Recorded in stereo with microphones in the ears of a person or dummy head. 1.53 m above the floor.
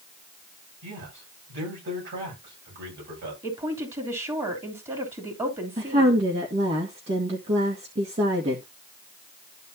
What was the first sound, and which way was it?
A man speaking, 60° right (ahead or behind).